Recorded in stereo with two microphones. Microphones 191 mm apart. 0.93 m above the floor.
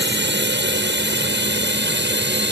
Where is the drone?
70° right (ahead or behind).